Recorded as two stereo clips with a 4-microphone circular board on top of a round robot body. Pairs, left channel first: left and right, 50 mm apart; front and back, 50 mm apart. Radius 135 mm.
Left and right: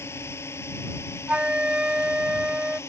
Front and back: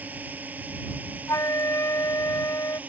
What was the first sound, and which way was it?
A drone, 125° left.